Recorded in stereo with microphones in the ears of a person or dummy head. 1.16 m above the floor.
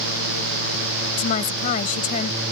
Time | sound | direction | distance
1.2 | a woman speaking | 50° left (ahead or behind) | ?